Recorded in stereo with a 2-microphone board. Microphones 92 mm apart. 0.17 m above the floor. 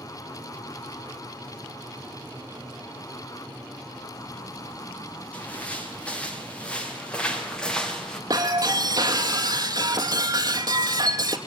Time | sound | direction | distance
5.3 | footsteps | 15° left (ahead or behind) | 6.5 m
8.3 | breaking glass | 40° right (ahead or behind) | 2 m